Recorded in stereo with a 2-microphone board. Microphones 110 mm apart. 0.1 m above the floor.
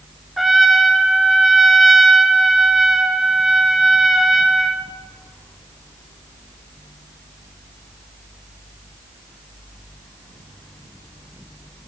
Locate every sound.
0.4 s a trumpet: centre (ahead or behind), 0.6 m